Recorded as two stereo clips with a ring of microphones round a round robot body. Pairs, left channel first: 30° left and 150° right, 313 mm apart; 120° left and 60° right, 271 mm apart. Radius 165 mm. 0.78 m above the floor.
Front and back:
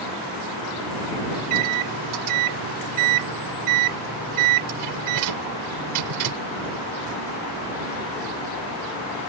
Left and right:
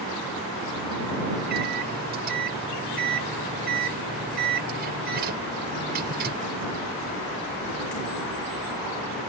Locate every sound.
1.4 s a microwave: 120° right